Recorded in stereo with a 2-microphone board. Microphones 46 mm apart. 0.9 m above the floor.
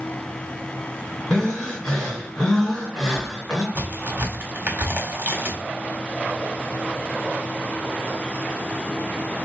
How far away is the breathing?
About 2.5 m.